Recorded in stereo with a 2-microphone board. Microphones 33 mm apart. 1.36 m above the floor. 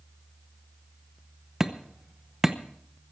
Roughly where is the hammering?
Centre.